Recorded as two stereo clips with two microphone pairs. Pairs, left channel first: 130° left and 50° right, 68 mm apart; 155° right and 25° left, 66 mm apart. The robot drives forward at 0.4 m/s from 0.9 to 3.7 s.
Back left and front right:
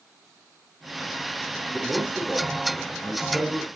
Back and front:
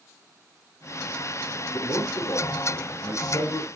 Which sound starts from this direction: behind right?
A man speaking, at 1.7 s.